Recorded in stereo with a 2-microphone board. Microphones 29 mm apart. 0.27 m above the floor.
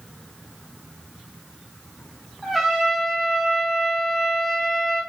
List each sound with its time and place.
2.4 s a trumpet: 10° right (ahead or behind), 2 m